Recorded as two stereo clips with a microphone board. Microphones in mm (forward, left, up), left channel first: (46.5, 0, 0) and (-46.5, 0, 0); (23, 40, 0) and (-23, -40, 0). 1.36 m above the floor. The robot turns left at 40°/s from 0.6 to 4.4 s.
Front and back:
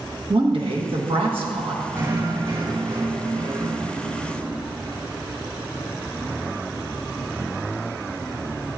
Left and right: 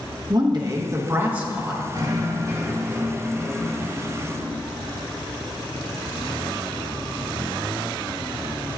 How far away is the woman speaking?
About 1.2 m.